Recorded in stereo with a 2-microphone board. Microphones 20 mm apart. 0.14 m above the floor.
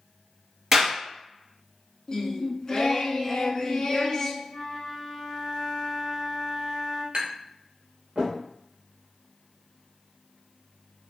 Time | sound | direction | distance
0.7 | a clap | 20° right (ahead or behind) | 2.0 m
2.1 | singing | 30° left (ahead or behind) | 0.5 m
4.5 | a flute | 35° left (ahead or behind) | 0.9 m
7.1 | tapping | 60° right (ahead or behind) | 1.5 m